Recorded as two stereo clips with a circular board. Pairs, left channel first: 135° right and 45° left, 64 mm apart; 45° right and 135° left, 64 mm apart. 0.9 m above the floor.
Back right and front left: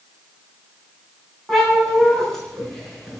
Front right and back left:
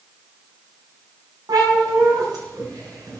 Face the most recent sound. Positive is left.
turn(degrees=140)